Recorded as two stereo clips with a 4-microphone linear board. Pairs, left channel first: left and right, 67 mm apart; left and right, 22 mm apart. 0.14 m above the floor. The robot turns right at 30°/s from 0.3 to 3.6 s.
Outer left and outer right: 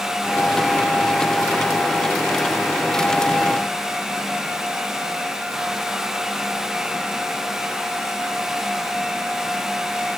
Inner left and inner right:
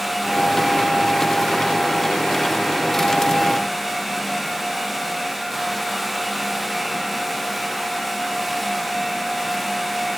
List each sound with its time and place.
Only background noise.